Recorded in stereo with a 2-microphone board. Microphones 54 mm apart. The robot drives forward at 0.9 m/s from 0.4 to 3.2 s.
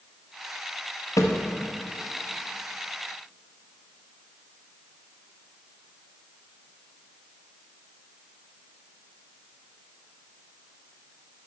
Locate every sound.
1.2 s a thud: 75° left (ahead or behind), 1.1 m; by 1.4 s 85° left, 1.1 m